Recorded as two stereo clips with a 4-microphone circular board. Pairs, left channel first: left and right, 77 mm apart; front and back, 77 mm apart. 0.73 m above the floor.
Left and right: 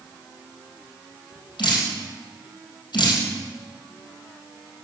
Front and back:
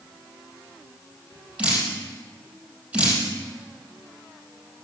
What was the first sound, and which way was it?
Dripping, 105° left.